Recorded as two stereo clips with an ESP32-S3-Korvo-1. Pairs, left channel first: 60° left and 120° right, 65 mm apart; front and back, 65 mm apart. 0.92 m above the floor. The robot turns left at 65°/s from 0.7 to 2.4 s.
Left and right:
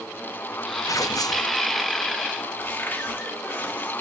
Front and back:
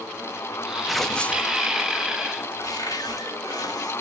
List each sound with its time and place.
0.9 s tearing paper: 95° left, 0.6 m; by 1.5 s 50° left, 0.6 m
2.6 s a cupboard door: straight ahead, 1.4 m